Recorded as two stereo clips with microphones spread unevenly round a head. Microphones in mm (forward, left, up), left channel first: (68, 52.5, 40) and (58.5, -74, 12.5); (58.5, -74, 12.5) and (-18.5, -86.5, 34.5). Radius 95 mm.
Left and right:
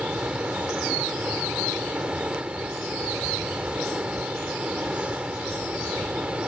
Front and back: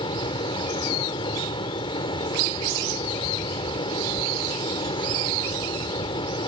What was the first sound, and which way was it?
A fan, 10° right.